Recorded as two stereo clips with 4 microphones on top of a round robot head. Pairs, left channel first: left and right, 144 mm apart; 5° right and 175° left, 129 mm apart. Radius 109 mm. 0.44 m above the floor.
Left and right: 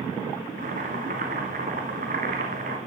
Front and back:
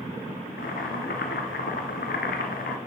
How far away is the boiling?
About 1.1 m.